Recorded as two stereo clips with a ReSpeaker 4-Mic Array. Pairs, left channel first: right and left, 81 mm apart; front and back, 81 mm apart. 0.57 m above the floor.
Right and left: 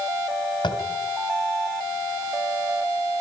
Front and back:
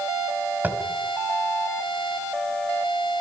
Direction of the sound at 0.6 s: 110° right.